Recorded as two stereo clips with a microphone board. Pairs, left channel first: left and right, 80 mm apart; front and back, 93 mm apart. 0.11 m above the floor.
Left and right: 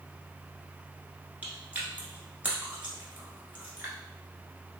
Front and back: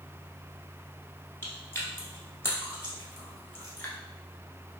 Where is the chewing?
35° right, 1.0 m.